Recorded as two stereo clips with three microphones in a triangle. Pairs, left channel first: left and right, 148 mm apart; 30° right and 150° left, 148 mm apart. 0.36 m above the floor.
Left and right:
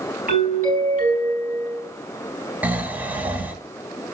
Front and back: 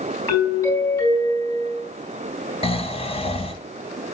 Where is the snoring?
15° right, 0.9 m.